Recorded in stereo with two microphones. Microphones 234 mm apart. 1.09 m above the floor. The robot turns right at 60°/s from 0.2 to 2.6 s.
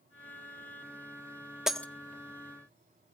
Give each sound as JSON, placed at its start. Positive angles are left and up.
{"t": 1.7, "sound": "breaking glass", "side_deg": 0, "distance_m": 0.7}